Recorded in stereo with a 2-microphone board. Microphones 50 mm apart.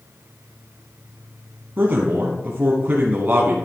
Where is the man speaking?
40° right (ahead or behind), 1.3 m.